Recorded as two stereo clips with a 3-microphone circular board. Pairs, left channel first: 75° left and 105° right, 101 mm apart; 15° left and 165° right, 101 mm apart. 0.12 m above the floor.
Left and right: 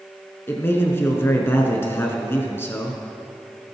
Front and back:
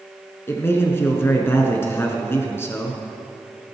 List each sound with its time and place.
0.5 s a man speaking: 45° left, 1.4 m